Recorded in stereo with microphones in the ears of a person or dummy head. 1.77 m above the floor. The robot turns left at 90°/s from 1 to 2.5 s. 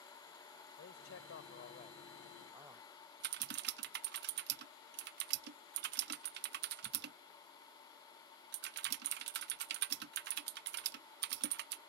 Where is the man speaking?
120° left; by 2.9 s 15° right.